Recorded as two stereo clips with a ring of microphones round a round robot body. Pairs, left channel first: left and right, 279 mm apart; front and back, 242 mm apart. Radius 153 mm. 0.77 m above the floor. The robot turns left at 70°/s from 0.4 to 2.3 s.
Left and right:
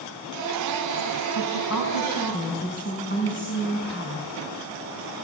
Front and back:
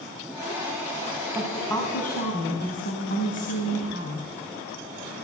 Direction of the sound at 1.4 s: 105° left.